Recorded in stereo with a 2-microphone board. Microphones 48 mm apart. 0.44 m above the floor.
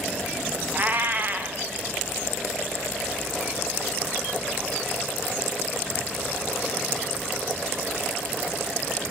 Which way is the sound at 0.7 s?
45° right (ahead or behind).